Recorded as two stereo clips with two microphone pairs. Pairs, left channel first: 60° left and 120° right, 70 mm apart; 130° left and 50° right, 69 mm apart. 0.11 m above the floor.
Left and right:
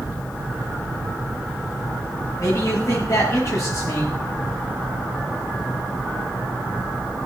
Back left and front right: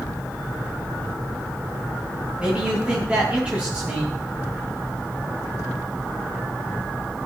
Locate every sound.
2.4 s a man speaking: 25° left, 9.5 m